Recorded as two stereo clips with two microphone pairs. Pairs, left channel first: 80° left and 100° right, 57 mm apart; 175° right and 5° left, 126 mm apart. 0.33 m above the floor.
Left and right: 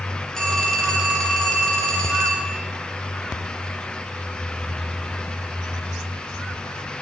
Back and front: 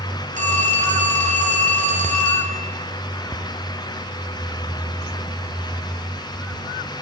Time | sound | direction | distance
0.3 | a phone ringing | straight ahead | 3 m